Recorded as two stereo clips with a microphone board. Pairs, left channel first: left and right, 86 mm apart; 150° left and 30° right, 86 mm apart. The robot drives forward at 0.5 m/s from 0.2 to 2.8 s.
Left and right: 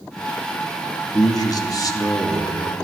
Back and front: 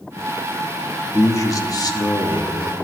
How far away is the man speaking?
About 1.1 m.